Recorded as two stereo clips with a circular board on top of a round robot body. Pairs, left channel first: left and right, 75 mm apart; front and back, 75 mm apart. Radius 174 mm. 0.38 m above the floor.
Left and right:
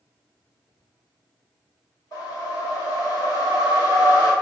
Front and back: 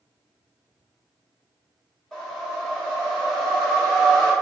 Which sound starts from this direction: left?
A whoosh, at 2.1 s.